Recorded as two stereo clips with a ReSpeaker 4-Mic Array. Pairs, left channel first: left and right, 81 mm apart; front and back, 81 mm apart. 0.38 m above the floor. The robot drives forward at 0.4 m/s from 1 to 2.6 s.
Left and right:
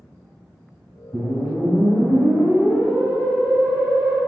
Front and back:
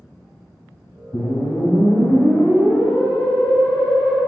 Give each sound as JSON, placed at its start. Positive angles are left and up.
{"t": 1.1, "sound": "a whoosh", "azimuth_deg": -45, "distance_m": 1.4}